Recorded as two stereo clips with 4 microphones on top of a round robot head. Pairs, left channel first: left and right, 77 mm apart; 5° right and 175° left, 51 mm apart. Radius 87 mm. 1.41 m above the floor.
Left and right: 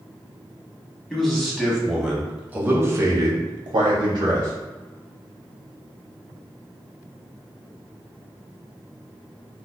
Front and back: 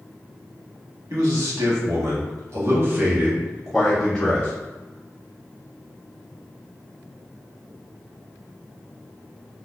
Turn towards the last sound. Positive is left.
turn(degrees=-75)